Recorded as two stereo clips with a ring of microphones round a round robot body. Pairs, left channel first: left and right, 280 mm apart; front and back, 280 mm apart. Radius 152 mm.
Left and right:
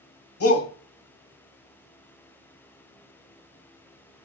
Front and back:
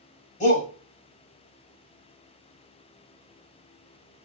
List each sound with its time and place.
0.4 s a shout: 60° left, 1.9 m